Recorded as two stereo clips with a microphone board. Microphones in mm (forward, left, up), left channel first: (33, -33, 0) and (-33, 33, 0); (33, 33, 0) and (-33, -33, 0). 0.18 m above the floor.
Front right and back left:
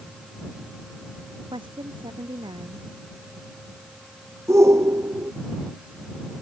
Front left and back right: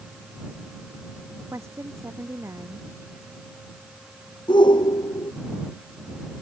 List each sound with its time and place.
1.5 s a woman speaking: 165° left
4.5 s a shout: 75° left